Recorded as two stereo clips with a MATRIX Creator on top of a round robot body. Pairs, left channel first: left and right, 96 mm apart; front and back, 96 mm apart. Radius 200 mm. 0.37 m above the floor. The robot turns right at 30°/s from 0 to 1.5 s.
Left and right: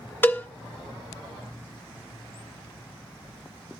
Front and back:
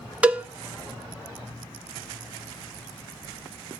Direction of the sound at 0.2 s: 125° left.